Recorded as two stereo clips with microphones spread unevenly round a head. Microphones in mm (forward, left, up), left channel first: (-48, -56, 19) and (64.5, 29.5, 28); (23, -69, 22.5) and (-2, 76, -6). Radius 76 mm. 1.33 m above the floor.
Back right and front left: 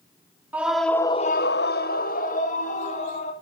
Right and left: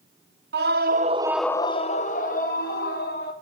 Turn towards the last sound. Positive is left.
turn(degrees=-105)